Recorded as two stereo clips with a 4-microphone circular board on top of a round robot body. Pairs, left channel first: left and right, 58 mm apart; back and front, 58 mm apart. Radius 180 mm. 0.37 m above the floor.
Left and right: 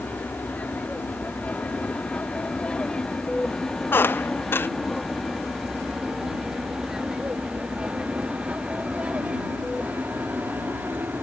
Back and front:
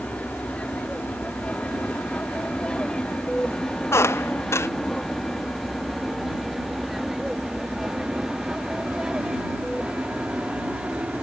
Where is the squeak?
140° left.